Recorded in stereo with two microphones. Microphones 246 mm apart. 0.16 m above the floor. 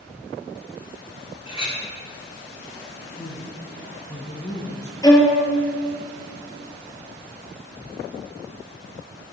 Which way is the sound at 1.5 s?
25° left (ahead or behind).